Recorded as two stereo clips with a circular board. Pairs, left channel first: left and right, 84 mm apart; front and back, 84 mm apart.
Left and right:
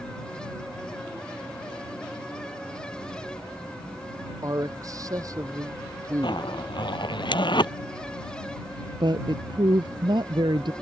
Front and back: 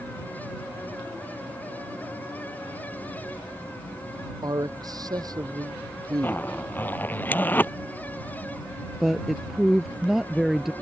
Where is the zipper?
70° left.